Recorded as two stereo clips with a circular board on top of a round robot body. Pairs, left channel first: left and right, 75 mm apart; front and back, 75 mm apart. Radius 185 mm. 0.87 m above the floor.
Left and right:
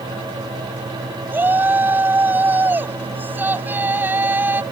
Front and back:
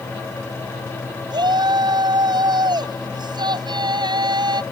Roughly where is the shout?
Behind right.